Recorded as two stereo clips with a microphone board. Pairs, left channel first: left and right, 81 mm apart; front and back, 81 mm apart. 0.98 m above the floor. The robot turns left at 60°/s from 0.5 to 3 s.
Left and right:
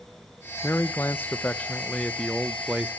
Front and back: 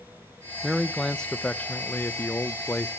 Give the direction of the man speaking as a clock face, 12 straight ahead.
9 o'clock.